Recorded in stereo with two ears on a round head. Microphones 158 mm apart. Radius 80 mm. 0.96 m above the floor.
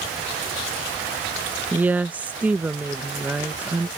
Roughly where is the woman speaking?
Centre.